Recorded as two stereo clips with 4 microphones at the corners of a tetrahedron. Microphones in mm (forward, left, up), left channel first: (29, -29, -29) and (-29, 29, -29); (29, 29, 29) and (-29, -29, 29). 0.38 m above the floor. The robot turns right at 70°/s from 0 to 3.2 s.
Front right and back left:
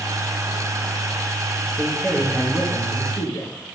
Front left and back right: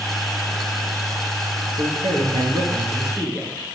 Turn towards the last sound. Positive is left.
turn(degrees=-55)